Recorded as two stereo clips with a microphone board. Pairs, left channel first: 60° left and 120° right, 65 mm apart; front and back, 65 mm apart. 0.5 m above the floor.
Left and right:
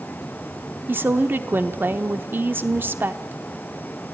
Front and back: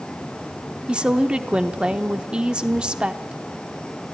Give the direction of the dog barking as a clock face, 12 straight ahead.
No dog barking in this recording.